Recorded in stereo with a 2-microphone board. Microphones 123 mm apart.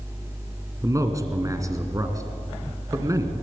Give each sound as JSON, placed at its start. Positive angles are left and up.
{"t": 0.8, "sound": "a man speaking", "side_deg": -25, "distance_m": 2.0}